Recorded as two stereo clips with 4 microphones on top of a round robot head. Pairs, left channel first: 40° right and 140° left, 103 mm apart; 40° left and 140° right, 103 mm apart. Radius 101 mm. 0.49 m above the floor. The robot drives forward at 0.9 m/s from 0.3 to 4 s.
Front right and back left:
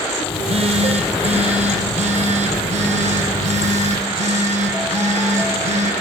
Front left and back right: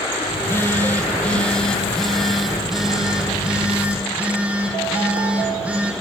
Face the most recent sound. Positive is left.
turn(degrees=140)